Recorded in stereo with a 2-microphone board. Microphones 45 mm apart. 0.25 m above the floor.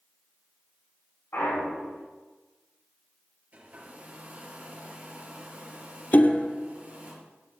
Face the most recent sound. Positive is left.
turn(degrees=40)  # may be behind; listen again after turning